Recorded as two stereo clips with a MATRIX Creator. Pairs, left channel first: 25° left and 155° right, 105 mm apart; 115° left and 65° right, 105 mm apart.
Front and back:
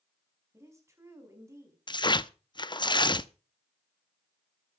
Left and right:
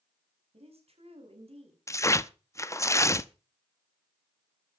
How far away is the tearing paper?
About 0.6 m.